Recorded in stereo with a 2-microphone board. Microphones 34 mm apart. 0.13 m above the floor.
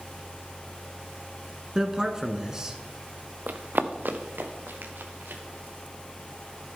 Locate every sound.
1.8 s a man speaking: 20° right (ahead or behind), 1.1 m
3.5 s running footsteps: 55° right (ahead or behind), 0.9 m; by 5.4 s 85° right, 3 m